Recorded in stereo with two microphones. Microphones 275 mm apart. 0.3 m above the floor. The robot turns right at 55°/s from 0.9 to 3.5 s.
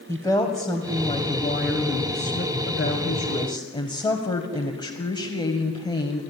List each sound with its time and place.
0.1 s a woman speaking: 15° left, 1.7 m; by 6.2 s 160° left, 1.7 m